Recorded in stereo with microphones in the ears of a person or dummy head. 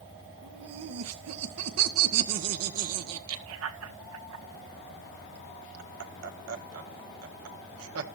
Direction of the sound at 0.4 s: 80° right.